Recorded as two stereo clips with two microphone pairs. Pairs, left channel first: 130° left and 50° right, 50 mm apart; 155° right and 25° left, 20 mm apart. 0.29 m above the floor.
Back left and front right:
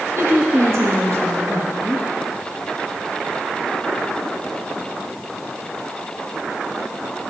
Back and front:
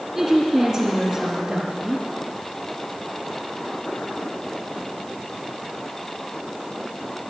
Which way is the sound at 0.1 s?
45° right.